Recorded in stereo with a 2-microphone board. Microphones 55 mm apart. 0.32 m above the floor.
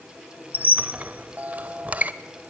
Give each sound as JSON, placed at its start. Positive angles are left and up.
{"t": 0.5, "sound": "a squeak", "side_deg": -30, "distance_m": 0.8}